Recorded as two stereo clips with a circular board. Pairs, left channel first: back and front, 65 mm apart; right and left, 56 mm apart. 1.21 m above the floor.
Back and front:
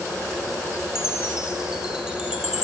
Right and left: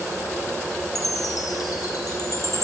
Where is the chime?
80° right, 5.5 m.